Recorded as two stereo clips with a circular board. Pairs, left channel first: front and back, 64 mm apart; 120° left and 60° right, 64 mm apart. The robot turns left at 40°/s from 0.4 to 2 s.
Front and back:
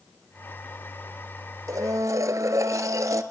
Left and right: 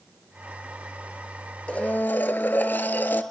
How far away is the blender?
About 0.7 m.